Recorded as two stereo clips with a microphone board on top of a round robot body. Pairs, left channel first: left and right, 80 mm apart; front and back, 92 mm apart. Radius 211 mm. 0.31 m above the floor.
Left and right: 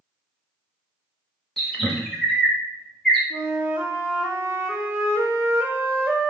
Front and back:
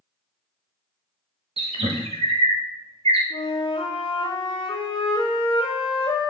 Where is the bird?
Straight behind, 0.8 m.